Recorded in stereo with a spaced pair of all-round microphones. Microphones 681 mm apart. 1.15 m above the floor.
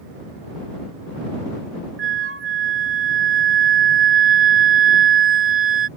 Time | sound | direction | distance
2.0 | a flute | 20° right (ahead or behind) | ?